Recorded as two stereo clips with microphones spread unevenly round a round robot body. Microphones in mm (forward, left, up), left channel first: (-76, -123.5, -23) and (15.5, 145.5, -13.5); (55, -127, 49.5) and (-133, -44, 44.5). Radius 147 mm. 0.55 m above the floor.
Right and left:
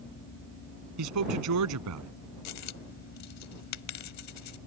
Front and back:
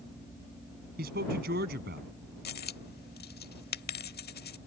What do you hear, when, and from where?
1.0 s a man speaking: 100° left
2.5 s a dropped coin: 70° right